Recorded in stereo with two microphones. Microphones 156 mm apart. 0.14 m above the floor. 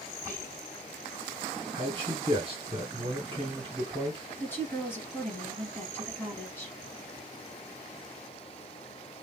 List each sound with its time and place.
0.2 s whispering: 15° left (ahead or behind), 1.6 m
1.7 s a man speaking: 35° right (ahead or behind), 1.3 m
4.4 s a woman speaking: 15° left (ahead or behind), 2 m